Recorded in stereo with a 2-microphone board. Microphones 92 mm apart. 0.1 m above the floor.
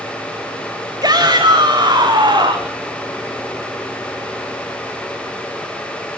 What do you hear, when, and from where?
1.0 s a shout: 45° right (ahead or behind), 9 m; by 2.8 s 50° right (ahead or behind), 9 m